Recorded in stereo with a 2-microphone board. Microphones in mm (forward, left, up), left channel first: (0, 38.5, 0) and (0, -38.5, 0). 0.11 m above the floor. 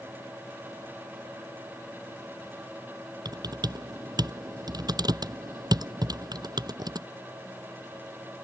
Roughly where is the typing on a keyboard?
Right.